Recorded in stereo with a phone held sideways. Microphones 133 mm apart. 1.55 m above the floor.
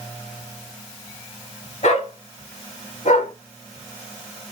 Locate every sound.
1.8 s a dog barking: 65° left (ahead or behind), 4.5 m; by 3.3 s 75° left (ahead or behind), 5 m